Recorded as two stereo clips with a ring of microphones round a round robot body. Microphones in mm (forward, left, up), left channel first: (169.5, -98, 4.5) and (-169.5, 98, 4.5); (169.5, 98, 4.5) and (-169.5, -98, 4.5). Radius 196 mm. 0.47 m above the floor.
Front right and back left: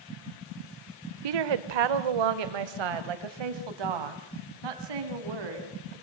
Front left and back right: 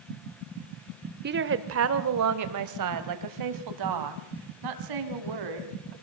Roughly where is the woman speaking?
Behind left.